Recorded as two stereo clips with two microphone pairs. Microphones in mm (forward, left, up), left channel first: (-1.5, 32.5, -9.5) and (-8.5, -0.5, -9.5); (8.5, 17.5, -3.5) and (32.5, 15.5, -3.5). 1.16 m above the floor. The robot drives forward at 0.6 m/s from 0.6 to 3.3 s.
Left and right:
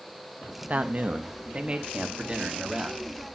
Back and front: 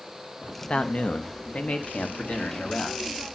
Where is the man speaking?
145° right, 1.0 m; by 3.4 s 165° right, 2.5 m.